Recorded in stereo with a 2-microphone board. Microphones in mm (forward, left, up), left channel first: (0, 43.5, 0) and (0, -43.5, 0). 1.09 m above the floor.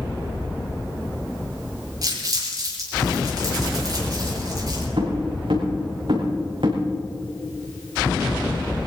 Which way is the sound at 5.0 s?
80° right.